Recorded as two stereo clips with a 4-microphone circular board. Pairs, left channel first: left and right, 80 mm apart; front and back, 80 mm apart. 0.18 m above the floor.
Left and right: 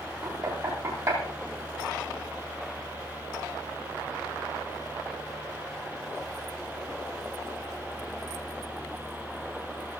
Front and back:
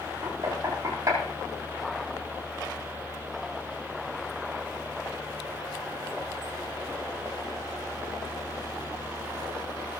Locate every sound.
0.2 s knocking: 130° right, 7.5 m